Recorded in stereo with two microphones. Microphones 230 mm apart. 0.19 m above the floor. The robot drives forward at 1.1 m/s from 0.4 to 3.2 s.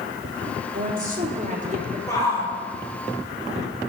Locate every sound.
0.7 s a woman speaking: 45° right (ahead or behind), 2.5 m; by 2.0 s 35° right (ahead or behind), 3.5 m
2.1 s a shout: 15° left (ahead or behind), 5 m